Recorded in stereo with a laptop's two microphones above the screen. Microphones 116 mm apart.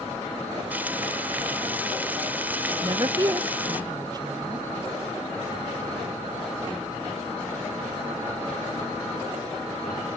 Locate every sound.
0.7 s frying: 15° right (ahead or behind), 1.0 m
2.8 s a woman speaking: 30° right (ahead or behind), 0.6 m